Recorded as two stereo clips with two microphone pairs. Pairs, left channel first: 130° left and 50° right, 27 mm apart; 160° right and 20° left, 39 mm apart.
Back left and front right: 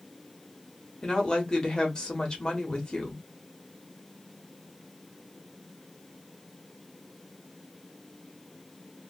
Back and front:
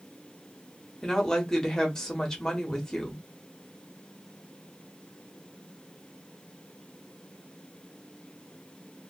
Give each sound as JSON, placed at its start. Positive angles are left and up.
{"t": 1.0, "sound": "a woman speaking", "azimuth_deg": 145, "distance_m": 1.1}